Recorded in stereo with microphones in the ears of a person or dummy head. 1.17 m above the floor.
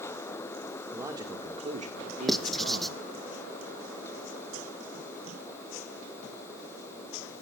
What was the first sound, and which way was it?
A man speaking, 15° right (ahead or behind).